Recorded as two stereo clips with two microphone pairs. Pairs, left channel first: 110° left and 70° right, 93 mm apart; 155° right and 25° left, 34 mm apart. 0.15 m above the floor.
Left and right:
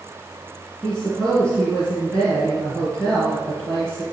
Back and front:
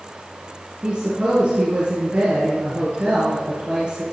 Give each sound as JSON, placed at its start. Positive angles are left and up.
{"t": 0.8, "sound": "a woman speaking", "azimuth_deg": 35, "distance_m": 2.5}